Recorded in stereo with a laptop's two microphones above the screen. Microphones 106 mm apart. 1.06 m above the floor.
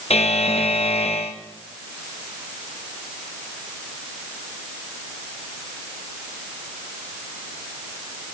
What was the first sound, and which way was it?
A buzzer, 80° left.